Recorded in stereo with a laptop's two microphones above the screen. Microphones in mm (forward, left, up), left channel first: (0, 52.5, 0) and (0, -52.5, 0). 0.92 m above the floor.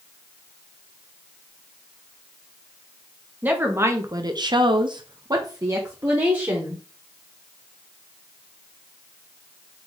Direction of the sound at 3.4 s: 15° right (ahead or behind).